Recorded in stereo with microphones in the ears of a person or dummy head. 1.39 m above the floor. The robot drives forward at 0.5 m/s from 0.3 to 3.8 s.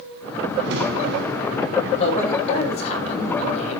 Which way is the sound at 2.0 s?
35° left (ahead or behind).